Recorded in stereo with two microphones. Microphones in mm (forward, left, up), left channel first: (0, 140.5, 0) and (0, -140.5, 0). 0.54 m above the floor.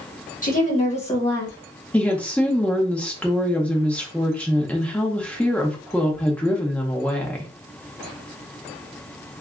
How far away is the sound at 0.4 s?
About 1.9 m.